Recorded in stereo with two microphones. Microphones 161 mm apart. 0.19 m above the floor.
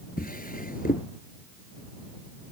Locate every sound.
0.2 s a drawer: 70° left (ahead or behind)